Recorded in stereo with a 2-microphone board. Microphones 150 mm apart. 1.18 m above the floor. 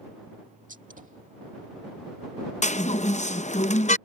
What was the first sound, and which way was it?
A gunshot, 60° right (ahead or behind).